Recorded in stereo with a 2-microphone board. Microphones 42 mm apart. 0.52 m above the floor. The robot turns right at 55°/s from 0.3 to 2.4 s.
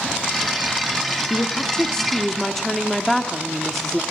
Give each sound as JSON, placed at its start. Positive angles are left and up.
{"t": 1.3, "sound": "a woman speaking", "side_deg": 20, "distance_m": 1.1}